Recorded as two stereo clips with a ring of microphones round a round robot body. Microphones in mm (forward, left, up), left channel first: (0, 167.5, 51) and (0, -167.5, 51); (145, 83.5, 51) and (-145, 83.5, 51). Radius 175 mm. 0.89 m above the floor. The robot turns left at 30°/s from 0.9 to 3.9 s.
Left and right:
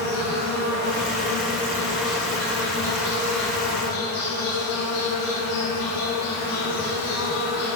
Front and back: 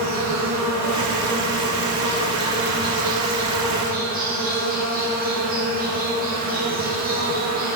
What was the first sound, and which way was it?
An insect, 145° right.